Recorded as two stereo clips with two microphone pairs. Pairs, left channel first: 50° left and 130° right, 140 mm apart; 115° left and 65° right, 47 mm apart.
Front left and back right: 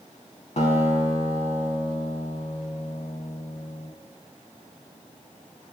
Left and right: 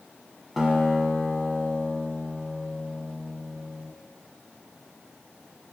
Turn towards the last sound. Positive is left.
turn(degrees=20)